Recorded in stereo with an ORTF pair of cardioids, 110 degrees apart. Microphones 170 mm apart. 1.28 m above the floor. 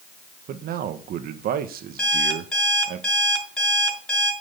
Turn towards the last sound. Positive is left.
turn(degrees=5)